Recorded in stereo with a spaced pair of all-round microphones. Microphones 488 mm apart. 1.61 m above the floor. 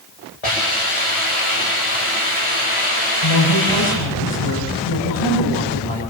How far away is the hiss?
About 8.5 m.